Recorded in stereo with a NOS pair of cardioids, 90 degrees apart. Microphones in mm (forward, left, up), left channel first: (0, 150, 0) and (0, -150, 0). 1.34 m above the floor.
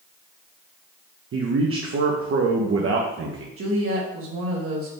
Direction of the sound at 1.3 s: 45° right.